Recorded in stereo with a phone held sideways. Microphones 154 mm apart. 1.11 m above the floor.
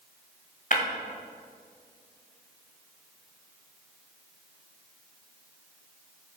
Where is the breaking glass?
55° left (ahead or behind), 1.8 m.